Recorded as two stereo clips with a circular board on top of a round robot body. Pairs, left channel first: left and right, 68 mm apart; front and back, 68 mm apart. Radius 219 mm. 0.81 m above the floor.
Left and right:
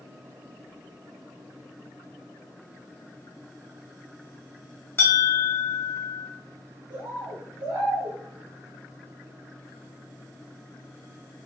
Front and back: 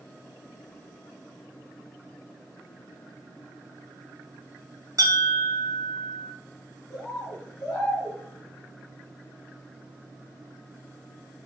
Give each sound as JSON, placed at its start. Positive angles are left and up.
{"t": 5.0, "sound": "a bell", "azimuth_deg": 145, "distance_m": 0.8}
{"t": 6.9, "sound": "a bird", "azimuth_deg": -75, "distance_m": 1.4}